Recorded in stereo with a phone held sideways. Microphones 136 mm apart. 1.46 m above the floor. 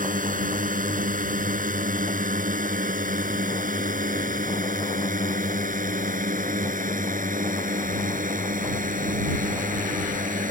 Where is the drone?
85° right; by 10.5 s 80° right.